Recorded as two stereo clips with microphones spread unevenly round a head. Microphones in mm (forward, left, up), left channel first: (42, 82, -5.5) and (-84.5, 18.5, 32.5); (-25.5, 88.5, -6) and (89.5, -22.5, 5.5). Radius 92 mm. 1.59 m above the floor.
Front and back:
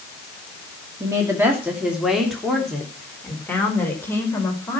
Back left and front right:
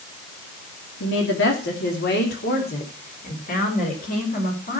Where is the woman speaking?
145° left, 2.5 m; by 4.8 s 100° left, 5.5 m.